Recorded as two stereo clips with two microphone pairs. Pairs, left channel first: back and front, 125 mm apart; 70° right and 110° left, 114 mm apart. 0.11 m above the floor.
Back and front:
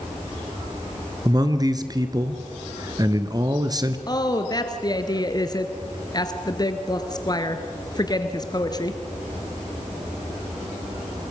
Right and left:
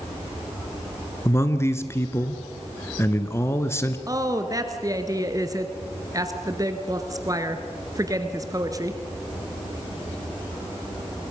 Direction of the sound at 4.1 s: 150° left.